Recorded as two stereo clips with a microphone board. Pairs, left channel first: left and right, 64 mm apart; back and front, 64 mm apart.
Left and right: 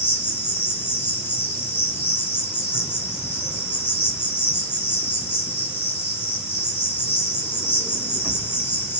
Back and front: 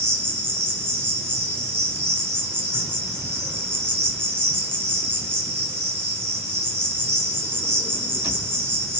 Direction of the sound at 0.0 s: 45° left.